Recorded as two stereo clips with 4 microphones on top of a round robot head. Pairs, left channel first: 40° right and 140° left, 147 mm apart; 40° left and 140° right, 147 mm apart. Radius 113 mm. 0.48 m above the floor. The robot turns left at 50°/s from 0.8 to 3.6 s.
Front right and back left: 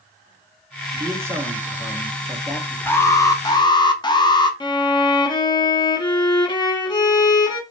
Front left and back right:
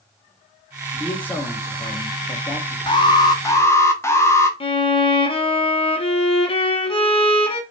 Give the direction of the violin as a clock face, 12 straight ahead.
12 o'clock.